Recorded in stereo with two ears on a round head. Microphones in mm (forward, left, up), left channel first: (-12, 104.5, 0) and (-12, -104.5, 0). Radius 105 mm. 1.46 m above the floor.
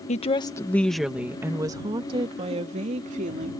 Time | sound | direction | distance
0.1 | a woman speaking | 30° left (ahead or behind) | ?